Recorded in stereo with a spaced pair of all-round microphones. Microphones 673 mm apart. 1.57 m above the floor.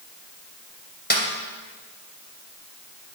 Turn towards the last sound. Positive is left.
turn(degrees=15)  # may be behind; listen again after turning